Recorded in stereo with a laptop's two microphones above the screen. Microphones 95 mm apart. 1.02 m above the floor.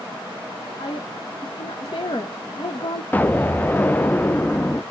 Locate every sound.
0.8 s a woman speaking: 55° left (ahead or behind), 0.9 m
3.1 s an explosion: 15° left (ahead or behind), 0.5 m